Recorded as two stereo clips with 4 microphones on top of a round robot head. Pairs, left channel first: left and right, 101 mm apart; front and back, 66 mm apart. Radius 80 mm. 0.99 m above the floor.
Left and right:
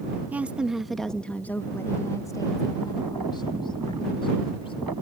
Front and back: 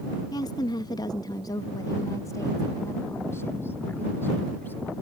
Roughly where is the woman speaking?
Ahead.